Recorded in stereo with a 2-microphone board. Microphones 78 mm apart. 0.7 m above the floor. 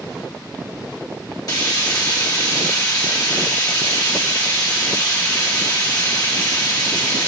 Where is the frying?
55° left (ahead or behind), 1.1 m.